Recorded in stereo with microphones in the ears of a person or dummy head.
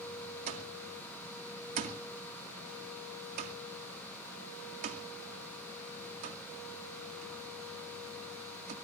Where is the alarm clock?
50° right (ahead or behind), 2.0 m.